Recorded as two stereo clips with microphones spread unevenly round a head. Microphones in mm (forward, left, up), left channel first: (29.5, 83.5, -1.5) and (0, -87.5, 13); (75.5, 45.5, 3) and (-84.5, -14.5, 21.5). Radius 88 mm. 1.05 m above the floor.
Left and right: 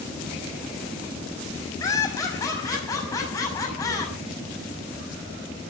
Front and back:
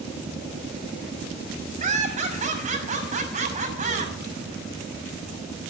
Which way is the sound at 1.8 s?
155° left.